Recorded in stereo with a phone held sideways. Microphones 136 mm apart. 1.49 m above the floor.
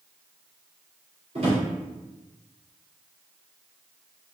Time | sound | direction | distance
1.4 | a drawer | 50° right (ahead or behind) | 2 m